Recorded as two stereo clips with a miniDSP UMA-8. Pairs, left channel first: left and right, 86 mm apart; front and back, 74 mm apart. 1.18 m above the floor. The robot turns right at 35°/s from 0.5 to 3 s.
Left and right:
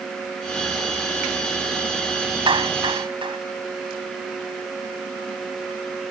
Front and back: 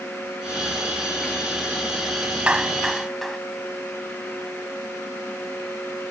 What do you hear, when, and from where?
2.5 s a clap: 105° right; by 3.4 s 85° right